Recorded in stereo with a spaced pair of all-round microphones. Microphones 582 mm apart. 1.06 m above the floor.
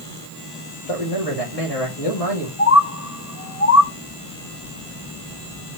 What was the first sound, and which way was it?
A man speaking, 75° left (ahead or behind).